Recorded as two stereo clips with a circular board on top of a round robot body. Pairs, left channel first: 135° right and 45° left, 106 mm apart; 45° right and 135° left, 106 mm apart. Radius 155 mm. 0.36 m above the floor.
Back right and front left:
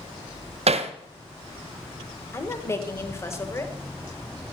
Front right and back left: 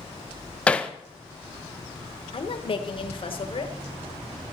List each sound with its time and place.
0.7 s hammering: 35° left, 1.0 m
2.3 s a woman speaking: 70° right, 2.0 m